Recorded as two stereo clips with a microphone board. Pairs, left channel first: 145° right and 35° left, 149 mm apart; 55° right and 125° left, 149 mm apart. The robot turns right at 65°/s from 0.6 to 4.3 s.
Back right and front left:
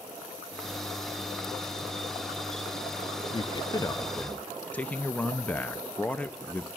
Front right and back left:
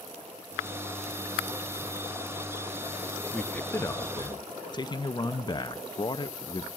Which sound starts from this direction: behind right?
A man speaking, at 3.3 s.